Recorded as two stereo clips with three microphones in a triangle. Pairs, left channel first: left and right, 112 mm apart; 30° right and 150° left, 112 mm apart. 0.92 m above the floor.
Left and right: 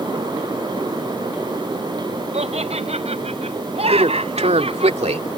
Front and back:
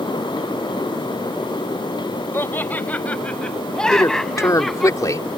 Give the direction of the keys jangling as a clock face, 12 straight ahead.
I don't hear keys jangling.